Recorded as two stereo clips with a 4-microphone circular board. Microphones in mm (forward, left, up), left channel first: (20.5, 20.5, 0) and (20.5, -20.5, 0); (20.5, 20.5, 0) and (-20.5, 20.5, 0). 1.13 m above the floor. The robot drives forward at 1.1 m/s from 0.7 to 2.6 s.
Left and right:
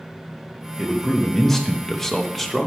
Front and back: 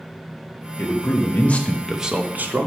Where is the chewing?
I don't hear chewing.